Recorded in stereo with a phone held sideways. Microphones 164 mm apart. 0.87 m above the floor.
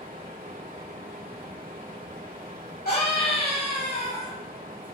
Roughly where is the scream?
Left.